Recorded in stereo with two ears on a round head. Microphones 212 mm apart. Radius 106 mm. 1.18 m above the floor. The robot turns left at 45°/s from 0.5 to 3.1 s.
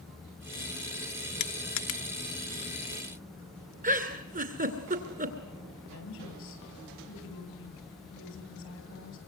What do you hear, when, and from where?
1.4 s crushing: 45° left (ahead or behind), 1.6 m; by 3.7 s 55° left (ahead or behind), 1.6 m
3.8 s a giggle: 35° right (ahead or behind), 2.5 m
5.9 s a woman speaking: 55° left (ahead or behind), 9.5 m